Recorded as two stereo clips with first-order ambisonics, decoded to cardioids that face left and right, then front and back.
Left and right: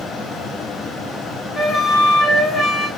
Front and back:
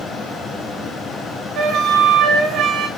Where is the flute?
150° left, 0.5 m.